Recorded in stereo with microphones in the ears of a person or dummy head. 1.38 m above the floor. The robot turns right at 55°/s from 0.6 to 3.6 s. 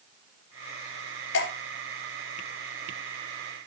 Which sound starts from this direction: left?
Dripping, at 1.3 s.